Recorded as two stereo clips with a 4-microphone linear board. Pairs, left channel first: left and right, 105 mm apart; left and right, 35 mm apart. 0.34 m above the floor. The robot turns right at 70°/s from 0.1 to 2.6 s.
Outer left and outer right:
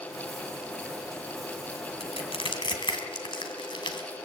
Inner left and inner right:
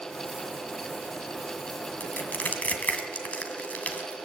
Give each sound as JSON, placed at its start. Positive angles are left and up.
{"t": 2.0, "sound": "crushing", "side_deg": 65, "distance_m": 2.5}